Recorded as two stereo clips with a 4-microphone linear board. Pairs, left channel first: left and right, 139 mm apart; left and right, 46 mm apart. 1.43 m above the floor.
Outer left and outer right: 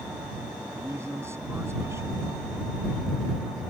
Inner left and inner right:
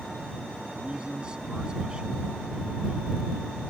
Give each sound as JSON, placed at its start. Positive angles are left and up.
{"t": 0.8, "sound": "a man speaking", "side_deg": -20}